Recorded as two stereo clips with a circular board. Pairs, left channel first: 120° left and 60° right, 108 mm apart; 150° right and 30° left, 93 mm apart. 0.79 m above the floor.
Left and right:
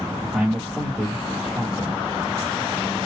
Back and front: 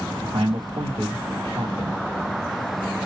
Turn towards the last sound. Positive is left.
turn(degrees=20)